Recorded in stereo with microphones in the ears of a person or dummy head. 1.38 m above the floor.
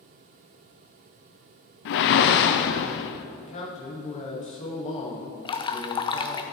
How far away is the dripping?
About 0.6 m.